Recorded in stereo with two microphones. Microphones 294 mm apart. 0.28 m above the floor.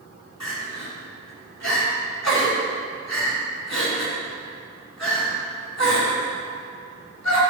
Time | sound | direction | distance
0.4 | crying | 65° left (ahead or behind) | 3.5 m